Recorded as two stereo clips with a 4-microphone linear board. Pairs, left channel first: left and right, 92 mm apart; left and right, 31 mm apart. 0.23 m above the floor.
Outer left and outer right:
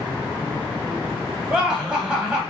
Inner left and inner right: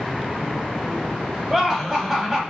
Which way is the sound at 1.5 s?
10° right (ahead or behind).